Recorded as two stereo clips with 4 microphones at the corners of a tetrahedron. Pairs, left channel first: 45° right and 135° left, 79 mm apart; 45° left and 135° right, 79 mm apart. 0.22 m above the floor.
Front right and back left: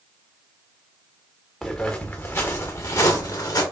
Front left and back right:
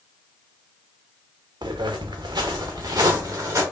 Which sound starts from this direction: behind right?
Footsteps, at 1.6 s.